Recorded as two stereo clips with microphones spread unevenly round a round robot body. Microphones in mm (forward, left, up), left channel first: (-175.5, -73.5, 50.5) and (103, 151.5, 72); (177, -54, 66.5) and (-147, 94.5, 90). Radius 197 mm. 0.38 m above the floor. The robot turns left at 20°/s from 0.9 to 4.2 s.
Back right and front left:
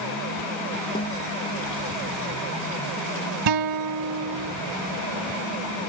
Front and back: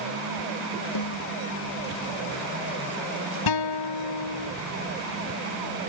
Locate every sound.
0.9 s a snare drum: 65° right; by 1.3 s 70° right
3.5 s a guitar: 5° left; by 4.5 s 10° right